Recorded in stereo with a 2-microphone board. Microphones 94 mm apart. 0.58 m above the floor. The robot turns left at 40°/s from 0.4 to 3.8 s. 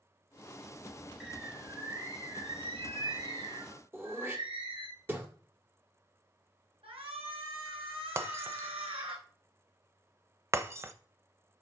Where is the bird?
5° right, 4.5 m; by 4.9 s 110° right, 4.5 m.